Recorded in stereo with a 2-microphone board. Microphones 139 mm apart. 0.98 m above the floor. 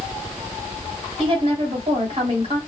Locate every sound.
1.2 s a woman speaking: 40° right (ahead or behind), 2 m